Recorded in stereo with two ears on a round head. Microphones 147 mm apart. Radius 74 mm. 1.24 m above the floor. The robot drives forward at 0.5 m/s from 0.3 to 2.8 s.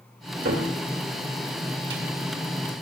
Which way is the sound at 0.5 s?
65° right (ahead or behind).